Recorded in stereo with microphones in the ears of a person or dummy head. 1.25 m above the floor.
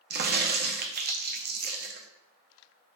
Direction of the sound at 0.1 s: 50° right (ahead or behind).